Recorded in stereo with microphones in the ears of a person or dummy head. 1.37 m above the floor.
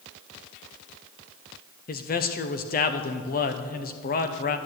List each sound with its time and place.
1.9 s a man speaking: 45° left (ahead or behind), 0.8 m